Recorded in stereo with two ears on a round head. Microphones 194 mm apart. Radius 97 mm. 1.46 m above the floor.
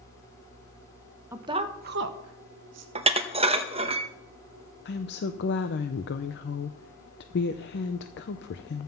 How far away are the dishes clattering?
About 0.8 m.